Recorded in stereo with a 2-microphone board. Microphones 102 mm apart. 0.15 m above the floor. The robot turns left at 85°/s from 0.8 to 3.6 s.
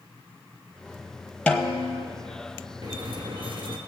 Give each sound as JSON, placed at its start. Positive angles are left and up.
{"t": 1.5, "sound": "a snare drum", "azimuth_deg": 170, "distance_m": 1.1}
{"t": 2.8, "sound": "a squeak", "azimuth_deg": -50, "distance_m": 1.5}